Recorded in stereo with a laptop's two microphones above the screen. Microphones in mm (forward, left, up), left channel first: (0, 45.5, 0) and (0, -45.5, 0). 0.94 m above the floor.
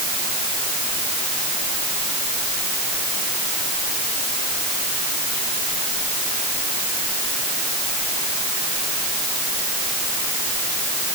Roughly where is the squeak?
No squeak in this recording.